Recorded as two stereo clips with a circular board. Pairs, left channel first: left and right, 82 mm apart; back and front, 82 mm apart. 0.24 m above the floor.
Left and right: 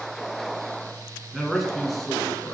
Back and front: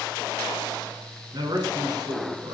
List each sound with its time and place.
1.3 s a man speaking: 5° right, 3 m; by 2.5 s 10° left, 3 m